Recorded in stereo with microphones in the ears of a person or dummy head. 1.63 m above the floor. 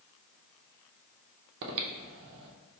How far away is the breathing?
About 0.6 m.